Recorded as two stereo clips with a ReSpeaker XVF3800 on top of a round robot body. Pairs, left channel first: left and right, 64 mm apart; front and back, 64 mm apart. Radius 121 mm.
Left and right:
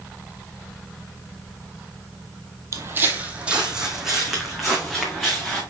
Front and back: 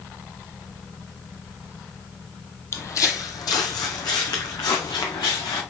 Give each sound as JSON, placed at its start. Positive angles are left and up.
{"t": 2.7, "sound": "footsteps", "azimuth_deg": -45, "distance_m": 0.9}